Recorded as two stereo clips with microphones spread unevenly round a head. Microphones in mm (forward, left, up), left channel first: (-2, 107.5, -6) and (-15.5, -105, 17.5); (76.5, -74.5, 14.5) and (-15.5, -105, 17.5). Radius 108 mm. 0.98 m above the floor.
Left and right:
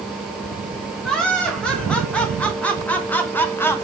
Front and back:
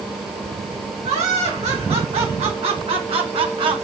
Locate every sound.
1.0 s laughter: 170° left, 3.5 m; by 3.8 s 160° left, 1.4 m